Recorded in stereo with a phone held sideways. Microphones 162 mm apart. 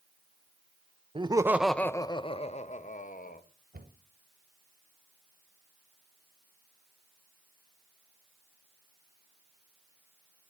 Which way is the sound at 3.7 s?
70° right (ahead or behind).